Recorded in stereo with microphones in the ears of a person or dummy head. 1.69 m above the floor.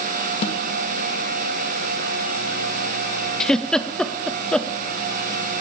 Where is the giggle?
5° left (ahead or behind), 0.6 m.